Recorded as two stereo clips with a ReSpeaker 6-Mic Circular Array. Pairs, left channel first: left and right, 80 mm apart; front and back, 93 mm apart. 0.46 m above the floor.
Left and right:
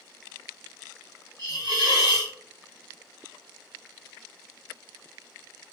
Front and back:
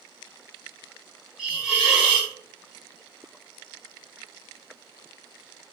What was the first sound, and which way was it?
A hiss, 105° right.